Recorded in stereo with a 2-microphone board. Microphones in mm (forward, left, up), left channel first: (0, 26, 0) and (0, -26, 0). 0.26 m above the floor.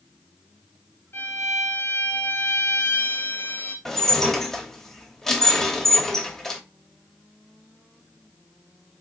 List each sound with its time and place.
1.1 s a violin: 65° left (ahead or behind), 1.9 m
3.9 s dishes clattering: 10° left (ahead or behind), 0.8 m